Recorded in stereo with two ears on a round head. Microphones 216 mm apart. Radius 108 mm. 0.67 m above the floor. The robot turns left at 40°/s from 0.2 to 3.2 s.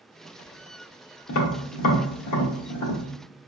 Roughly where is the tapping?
Left.